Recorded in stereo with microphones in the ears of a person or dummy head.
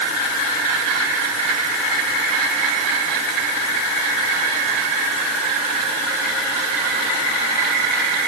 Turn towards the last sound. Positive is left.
No sound to turn to.